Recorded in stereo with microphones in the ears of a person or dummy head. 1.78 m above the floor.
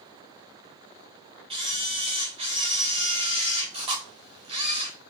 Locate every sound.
1.5 s a camera shutter: 25° right (ahead or behind), 0.6 m